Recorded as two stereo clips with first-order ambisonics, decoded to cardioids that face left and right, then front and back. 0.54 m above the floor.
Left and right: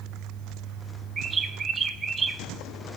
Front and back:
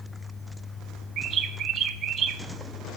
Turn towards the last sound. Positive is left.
turn(degrees=-150)